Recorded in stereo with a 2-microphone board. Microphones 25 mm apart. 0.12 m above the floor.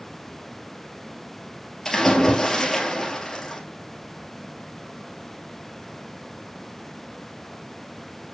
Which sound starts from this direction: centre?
A splash, at 1.9 s.